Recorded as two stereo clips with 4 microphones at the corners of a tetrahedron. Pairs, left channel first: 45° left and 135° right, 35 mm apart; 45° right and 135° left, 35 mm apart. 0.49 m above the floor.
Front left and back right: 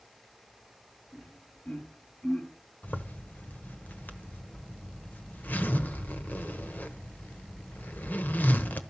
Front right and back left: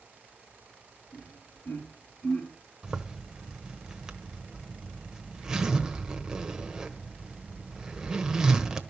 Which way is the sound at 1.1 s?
5° right.